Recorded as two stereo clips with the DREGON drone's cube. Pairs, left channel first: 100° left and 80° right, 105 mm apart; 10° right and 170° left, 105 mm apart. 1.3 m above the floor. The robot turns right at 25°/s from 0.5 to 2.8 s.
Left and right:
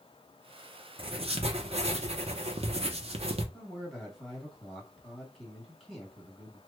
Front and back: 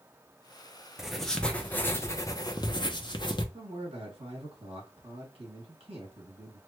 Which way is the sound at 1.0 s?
105° right.